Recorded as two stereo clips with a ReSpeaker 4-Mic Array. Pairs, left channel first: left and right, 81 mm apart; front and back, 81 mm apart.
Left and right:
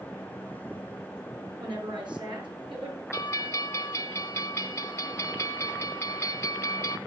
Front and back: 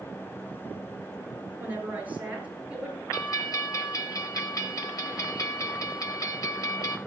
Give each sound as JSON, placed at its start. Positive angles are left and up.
{"t": 1.6, "sound": "a woman speaking", "azimuth_deg": -115, "distance_m": 5.5}
{"t": 3.1, "sound": "a bell", "azimuth_deg": 40, "distance_m": 2.5}